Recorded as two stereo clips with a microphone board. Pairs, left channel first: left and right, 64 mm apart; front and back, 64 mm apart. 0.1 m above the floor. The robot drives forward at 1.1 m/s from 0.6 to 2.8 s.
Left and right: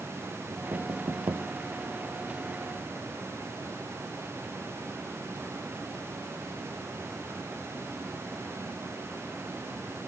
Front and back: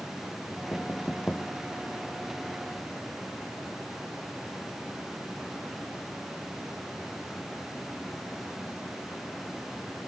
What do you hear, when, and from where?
0.5 s knocking: 65° right; by 1.5 s 70° right